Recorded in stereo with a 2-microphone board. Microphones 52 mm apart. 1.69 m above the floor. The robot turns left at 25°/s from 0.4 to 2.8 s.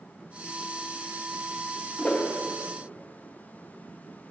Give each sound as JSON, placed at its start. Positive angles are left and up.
{"t": 2.0, "sound": "a whoosh", "side_deg": 25, "distance_m": 0.7}